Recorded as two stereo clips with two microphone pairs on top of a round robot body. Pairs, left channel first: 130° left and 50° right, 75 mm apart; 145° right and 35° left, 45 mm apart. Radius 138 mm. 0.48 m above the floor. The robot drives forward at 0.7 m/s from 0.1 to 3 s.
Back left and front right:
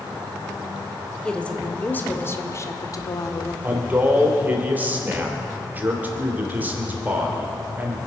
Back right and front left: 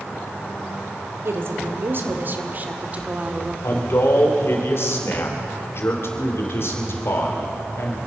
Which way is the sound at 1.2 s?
50° left.